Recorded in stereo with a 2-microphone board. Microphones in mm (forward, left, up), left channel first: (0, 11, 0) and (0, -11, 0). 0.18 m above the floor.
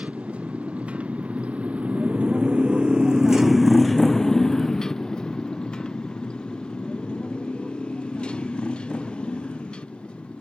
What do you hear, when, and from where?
0.0 s a motorcycle: 85° right; by 10.4 s 60° left (ahead or behind)